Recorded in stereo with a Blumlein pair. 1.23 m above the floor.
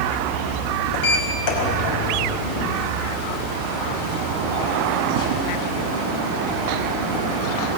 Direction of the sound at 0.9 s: 45° left.